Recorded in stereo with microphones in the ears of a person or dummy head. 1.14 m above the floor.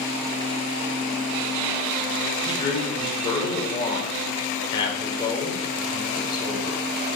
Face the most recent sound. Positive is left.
turn(degrees=25)  # may be behind; listen again after turning